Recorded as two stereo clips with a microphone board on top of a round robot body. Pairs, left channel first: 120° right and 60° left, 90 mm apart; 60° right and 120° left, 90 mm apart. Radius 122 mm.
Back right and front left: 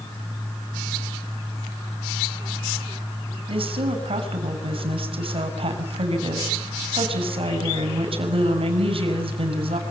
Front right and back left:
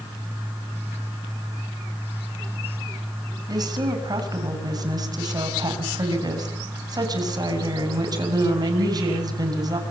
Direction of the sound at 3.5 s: 75° left.